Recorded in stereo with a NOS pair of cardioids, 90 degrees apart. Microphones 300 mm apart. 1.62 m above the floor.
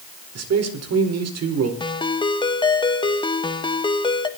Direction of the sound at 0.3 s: 55° right.